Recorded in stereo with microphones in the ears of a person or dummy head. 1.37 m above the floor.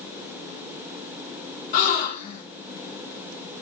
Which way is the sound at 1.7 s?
45° left (ahead or behind).